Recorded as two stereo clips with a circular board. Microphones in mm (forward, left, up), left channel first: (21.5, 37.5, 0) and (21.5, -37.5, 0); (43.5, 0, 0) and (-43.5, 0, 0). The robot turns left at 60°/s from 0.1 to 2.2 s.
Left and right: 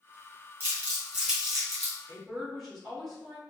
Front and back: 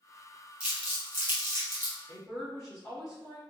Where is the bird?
I don't hear a bird.